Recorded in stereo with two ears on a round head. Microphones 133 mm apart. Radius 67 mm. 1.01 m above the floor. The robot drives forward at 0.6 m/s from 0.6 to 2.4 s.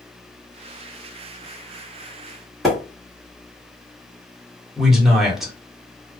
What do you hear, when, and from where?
2.6 s a splash: centre (ahead or behind), 1.3 m
4.8 s a man speaking: 5° right (ahead or behind), 1.0 m